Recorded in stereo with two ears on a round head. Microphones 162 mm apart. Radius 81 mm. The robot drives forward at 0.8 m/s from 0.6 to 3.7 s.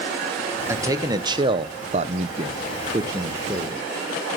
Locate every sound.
0.7 s a man speaking: 15° right (ahead or behind), 1.3 m